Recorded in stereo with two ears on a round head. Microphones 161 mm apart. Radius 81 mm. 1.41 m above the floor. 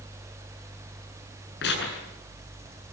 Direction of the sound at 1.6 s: 70° left (ahead or behind).